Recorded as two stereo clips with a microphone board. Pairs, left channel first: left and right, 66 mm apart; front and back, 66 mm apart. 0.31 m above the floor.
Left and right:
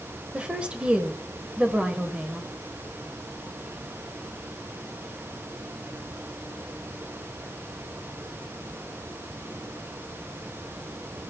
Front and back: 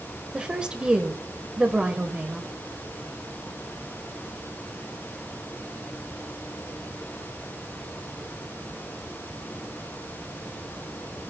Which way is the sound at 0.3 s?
125° right.